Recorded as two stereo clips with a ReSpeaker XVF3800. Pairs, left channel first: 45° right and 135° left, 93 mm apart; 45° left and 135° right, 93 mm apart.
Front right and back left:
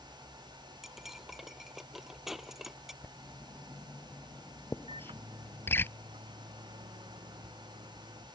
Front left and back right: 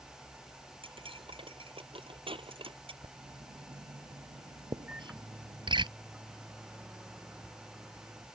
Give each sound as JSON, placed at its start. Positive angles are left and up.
{"t": 0.8, "sound": "cutlery clinking", "azimuth_deg": -140}
{"t": 3.0, "sound": "writing", "azimuth_deg": -110}
{"t": 4.9, "sound": "a microwave", "azimuth_deg": 150}